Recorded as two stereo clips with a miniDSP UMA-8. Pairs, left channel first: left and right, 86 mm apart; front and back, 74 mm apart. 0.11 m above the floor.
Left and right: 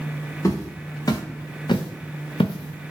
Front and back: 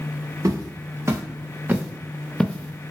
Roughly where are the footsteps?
Behind left.